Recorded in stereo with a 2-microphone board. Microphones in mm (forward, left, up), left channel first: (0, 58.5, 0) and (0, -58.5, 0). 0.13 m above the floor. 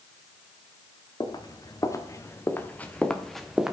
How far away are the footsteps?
About 1.9 m.